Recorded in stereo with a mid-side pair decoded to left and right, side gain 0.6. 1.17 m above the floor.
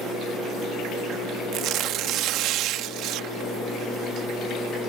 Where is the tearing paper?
65° right.